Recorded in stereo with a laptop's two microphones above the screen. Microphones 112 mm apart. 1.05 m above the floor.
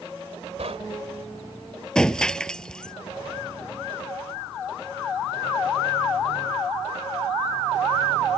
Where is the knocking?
75° right (ahead or behind).